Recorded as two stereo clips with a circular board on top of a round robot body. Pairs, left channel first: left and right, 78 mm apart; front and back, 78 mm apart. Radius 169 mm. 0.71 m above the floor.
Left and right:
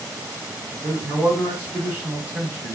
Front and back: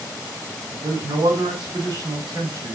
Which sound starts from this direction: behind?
A man speaking, at 0.7 s.